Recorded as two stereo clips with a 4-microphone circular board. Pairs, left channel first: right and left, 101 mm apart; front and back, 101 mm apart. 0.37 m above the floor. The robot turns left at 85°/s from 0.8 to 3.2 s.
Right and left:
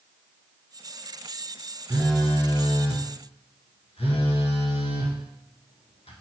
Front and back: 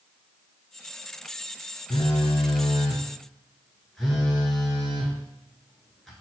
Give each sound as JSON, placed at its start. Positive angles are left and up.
{"t": 1.9, "sound": "a phone buzzing", "azimuth_deg": 20, "distance_m": 0.9}